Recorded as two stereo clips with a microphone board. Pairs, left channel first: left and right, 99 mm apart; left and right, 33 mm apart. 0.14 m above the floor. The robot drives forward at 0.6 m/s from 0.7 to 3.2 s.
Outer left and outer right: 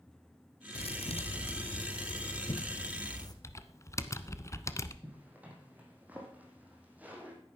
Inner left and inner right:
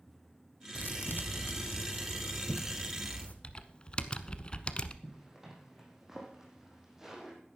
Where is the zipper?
15° right (ahead or behind), 3.5 m.